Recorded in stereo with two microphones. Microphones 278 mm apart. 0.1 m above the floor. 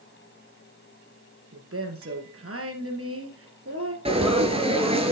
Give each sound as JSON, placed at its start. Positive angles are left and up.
{"t": 1.5, "sound": "a woman speaking", "side_deg": -55, "distance_m": 2.0}
{"t": 4.0, "sound": "frying", "side_deg": -20, "distance_m": 1.6}